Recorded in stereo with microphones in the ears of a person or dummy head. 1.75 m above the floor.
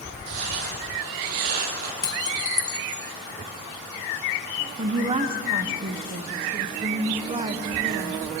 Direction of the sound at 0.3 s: 65° right (ahead or behind).